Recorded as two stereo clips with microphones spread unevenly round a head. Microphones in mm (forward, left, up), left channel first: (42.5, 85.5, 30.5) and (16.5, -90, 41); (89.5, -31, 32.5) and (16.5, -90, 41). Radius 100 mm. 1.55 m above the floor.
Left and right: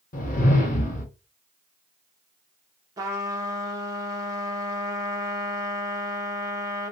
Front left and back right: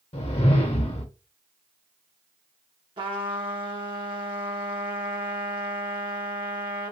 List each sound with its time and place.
0.1 s a whoosh: 35° left, 1.1 m
3.0 s a trumpet: 165° right, 0.6 m